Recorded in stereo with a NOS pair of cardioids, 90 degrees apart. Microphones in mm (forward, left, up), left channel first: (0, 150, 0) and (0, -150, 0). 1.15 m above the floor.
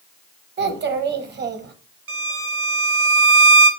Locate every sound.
0.6 s a child speaking: 35° right, 0.8 m
2.1 s a violin: 45° right, 0.7 m